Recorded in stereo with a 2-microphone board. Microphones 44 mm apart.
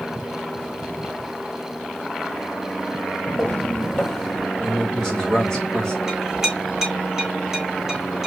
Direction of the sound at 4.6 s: 15° left (ahead or behind).